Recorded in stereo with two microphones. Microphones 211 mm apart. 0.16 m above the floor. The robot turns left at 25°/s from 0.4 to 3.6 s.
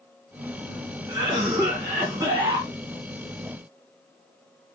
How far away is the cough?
About 1.2 m.